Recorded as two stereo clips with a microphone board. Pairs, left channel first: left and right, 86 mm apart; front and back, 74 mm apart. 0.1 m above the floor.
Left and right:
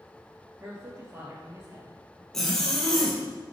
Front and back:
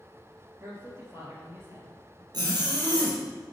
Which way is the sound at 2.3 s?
175° left.